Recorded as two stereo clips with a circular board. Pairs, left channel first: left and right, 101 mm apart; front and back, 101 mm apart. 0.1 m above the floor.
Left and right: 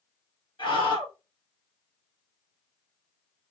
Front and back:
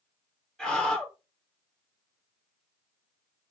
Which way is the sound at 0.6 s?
85° left.